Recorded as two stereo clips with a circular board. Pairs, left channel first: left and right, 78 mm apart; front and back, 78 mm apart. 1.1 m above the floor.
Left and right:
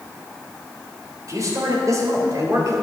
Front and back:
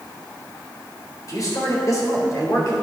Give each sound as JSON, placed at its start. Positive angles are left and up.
{"t": 1.3, "sound": "a man speaking", "azimuth_deg": -45, "distance_m": 3.5}